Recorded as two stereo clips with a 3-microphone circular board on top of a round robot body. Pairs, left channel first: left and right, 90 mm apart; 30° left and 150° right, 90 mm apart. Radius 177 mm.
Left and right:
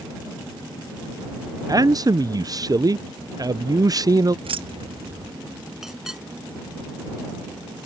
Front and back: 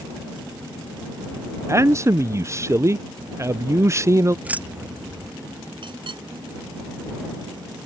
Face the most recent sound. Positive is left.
turn(degrees=-175)